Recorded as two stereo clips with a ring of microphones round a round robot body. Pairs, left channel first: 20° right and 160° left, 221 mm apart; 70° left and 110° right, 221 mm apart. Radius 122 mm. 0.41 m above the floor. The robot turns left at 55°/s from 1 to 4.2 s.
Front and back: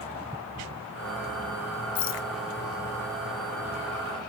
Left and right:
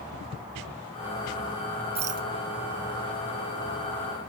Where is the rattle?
45° right; by 2.3 s 65° right.